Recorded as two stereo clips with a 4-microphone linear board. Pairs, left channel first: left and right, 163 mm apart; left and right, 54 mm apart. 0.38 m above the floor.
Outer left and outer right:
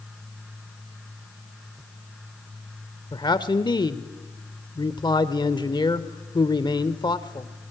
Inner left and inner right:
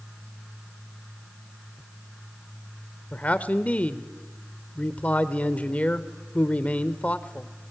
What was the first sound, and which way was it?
A man speaking, 30° left (ahead or behind).